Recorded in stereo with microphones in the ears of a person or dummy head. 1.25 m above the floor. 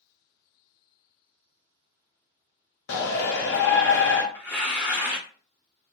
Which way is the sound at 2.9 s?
60° left (ahead or behind).